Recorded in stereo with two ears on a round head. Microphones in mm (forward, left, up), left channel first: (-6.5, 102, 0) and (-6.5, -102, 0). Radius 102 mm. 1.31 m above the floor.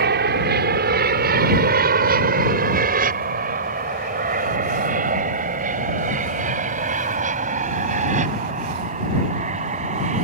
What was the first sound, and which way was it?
An aircraft, 45° right (ahead or behind).